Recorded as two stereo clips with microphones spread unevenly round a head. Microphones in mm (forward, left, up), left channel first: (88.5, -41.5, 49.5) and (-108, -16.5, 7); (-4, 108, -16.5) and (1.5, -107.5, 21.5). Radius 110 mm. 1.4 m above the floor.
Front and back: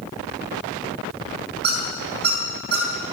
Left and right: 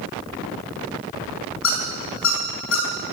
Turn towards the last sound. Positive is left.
turn(degrees=125)